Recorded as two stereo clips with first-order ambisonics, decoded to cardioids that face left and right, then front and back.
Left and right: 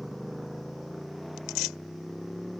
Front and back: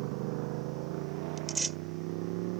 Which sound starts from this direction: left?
Tearing paper, at 1.4 s.